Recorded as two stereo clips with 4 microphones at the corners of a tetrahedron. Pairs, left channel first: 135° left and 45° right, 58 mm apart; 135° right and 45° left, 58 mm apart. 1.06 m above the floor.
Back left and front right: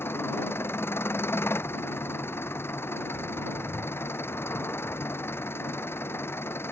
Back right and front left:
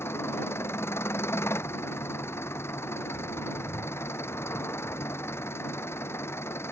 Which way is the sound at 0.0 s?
175° right.